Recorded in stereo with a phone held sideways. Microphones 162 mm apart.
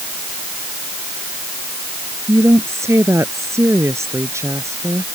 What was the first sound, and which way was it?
A woman speaking, 15° right (ahead or behind).